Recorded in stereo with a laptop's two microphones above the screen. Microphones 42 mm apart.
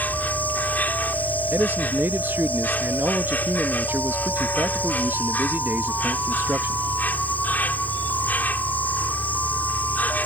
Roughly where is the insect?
Left.